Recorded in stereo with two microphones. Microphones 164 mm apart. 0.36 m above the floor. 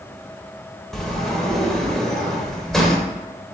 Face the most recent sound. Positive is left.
turn(degrees=0)  # may be behind; listen again after turning